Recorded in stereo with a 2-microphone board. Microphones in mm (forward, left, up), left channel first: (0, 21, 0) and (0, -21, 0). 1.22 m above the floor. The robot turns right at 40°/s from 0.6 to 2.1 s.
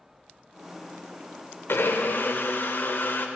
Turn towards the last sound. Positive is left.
turn(degrees=50)  # may be behind; listen again after turning